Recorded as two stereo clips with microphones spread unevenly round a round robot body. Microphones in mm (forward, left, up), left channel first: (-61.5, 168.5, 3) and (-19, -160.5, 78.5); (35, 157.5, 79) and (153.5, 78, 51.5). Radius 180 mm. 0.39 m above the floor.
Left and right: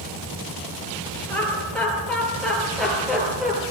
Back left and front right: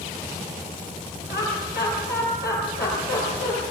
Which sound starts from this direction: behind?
Laughter, at 1.3 s.